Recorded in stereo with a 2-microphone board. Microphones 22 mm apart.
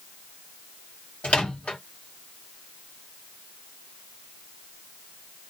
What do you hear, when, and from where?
1.2 s a microwave: 75° left (ahead or behind), 1.0 m